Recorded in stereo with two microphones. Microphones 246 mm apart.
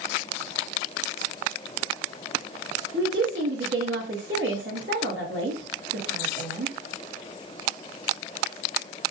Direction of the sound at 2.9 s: 55° right (ahead or behind).